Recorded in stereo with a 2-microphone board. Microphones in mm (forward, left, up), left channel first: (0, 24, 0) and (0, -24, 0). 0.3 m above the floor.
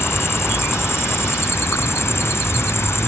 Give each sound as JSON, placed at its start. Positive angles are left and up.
{"t": 0.0, "sound": "an insect", "side_deg": 60}